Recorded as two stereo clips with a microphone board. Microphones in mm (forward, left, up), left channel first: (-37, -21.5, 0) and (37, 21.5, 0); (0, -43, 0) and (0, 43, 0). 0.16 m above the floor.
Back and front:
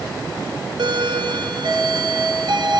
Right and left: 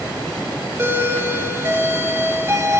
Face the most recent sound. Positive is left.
turn(degrees=30)